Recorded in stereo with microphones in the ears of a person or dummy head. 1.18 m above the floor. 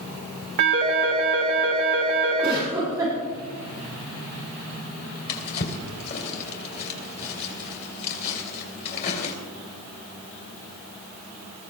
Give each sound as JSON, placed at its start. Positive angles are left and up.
{"t": 0.6, "sound": "a phone ringing", "side_deg": -60, "distance_m": 3.0}
{"t": 2.4, "sound": "a giggle", "side_deg": -15, "distance_m": 7.5}
{"t": 5.3, "sound": "a drawer", "side_deg": 55, "distance_m": 2.5}